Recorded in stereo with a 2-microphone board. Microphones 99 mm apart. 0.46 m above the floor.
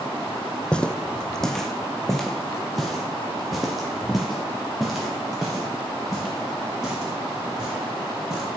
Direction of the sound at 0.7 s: 10° left (ahead or behind).